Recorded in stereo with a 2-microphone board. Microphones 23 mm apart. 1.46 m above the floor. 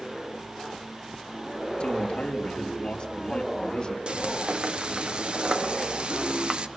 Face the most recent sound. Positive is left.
turn(degrees=-50)  # may be behind; listen again after turning